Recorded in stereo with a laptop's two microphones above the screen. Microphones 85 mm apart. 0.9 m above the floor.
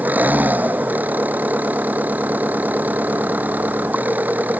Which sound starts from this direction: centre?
An engine running, at 0.0 s.